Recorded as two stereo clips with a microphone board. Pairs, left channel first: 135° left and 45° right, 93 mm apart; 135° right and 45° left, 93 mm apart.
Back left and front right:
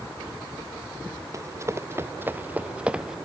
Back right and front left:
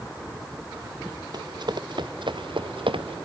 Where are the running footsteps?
10° left; by 3.2 s 40° left.